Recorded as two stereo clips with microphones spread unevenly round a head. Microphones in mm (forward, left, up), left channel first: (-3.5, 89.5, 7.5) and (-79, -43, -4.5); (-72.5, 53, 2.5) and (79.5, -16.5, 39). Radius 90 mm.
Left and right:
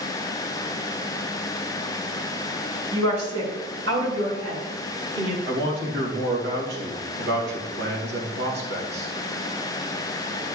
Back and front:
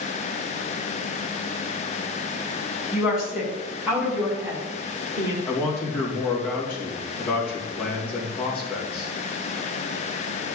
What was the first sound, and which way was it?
A woman speaking, 115° right.